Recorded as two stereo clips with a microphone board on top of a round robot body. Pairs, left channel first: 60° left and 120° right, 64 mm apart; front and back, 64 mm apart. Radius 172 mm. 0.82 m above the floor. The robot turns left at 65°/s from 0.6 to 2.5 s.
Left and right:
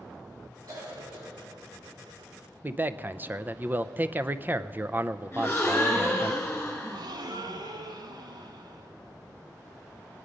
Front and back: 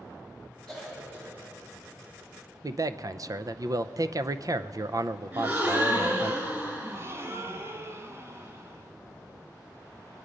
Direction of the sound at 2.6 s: 175° right.